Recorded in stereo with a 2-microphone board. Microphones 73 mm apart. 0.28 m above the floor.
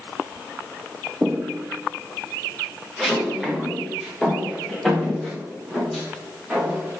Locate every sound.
1.2 s footsteps: 15° right (ahead or behind), 0.5 m; by 7.0 s 5° left (ahead or behind), 5.5 m